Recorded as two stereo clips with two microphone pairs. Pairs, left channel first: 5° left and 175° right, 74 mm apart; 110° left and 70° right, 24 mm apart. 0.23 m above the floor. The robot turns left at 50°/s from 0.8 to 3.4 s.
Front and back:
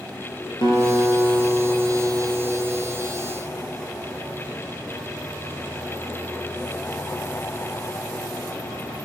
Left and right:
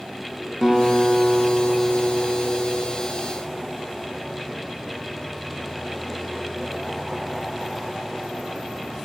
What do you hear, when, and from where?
0.6 s a guitar: 5° right, 4.5 m; by 2.9 s 105° right, 4.5 m